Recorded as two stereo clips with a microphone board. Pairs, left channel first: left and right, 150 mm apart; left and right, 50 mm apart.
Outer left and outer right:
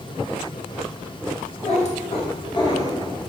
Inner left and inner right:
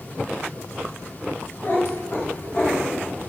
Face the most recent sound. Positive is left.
turn(degrees=15)  # may be behind; listen again after turning